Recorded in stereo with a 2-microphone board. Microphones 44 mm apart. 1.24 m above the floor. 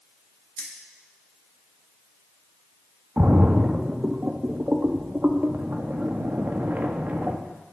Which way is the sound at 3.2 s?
45° right (ahead or behind).